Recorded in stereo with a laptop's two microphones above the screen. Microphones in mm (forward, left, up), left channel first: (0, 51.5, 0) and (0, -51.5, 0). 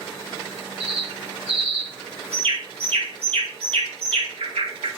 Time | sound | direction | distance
0.8 | a bird | 80° right | 3 m